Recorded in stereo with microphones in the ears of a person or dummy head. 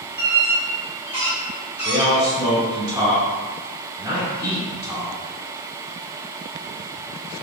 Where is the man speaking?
20° right (ahead or behind), 2.0 m.